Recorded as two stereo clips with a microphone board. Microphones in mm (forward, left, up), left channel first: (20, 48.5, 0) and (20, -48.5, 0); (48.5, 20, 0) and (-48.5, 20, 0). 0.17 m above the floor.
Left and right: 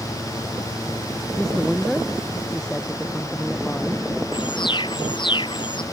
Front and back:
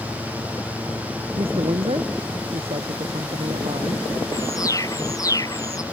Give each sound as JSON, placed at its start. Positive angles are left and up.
{"t": 1.4, "sound": "a woman speaking", "azimuth_deg": 175}
{"t": 4.3, "sound": "an alarm", "azimuth_deg": 55}